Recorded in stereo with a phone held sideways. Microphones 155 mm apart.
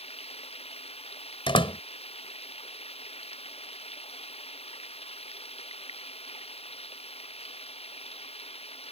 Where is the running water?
40° left (ahead or behind).